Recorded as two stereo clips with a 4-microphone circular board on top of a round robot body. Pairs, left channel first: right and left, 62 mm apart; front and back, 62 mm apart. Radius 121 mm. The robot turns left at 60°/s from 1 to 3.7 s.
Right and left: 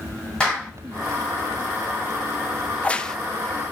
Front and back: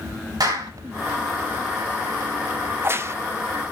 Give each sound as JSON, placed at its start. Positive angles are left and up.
{"t": 0.4, "sound": "a clap", "azimuth_deg": -165, "distance_m": 6.5}
{"t": 2.7, "sound": "a crack", "azimuth_deg": -140, "distance_m": 1.0}